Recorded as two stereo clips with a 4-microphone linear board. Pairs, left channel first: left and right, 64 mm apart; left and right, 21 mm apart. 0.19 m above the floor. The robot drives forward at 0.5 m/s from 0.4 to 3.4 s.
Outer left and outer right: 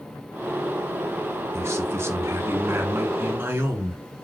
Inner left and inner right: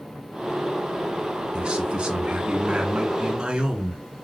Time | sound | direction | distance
1.5 | a man speaking | 45° right (ahead or behind) | 2 m